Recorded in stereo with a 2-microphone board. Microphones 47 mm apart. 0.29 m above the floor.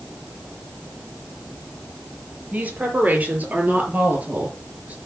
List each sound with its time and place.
2.5 s a woman speaking: 35° right (ahead or behind), 6.5 m